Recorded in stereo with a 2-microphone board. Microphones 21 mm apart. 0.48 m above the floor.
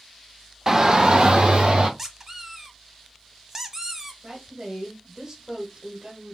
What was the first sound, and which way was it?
A shout, 25° right (ahead or behind).